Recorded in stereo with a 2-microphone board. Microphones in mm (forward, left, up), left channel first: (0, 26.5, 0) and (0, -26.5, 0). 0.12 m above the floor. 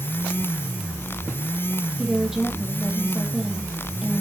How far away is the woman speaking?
About 3.5 m.